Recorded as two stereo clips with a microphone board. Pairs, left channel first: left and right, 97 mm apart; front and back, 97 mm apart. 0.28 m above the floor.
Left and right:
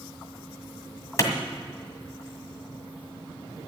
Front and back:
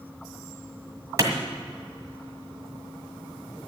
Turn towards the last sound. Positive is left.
turn(degrees=135)